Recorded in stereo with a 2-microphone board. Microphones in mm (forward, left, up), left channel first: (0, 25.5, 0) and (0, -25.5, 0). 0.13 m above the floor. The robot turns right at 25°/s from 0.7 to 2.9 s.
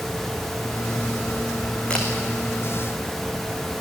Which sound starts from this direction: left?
A camera shutter, at 1.9 s.